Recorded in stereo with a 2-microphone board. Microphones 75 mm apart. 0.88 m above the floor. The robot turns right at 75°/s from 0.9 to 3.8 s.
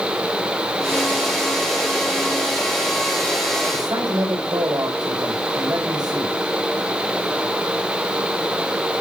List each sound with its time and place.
3.7 s a man speaking: 65° right (ahead or behind), 4.5 m; by 6.4 s 60° right (ahead or behind), 4.5 m